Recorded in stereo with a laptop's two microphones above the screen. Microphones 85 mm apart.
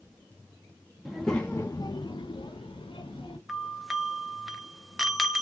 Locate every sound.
1.1 s a child speaking: centre (ahead or behind), 0.7 m; by 3.4 s 75° left (ahead or behind), 1.1 m
3.5 s a doorbell: 5° right (ahead or behind), 0.7 m